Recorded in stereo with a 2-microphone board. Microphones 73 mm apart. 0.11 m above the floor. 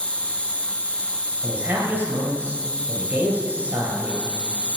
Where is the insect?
15° left (ahead or behind), 0.8 m.